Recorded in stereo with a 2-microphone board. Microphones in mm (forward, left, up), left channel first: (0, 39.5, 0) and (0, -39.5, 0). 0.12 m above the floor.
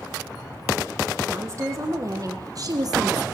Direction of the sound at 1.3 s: 40° right (ahead or behind).